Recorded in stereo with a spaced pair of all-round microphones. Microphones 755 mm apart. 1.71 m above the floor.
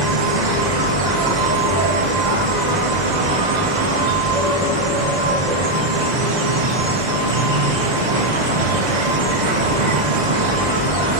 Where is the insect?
65° right (ahead or behind), 1.6 m.